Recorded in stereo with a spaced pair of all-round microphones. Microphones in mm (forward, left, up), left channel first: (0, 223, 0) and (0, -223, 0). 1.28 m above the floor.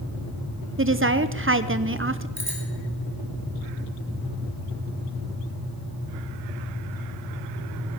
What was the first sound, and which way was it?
A woman speaking, 30° right (ahead or behind).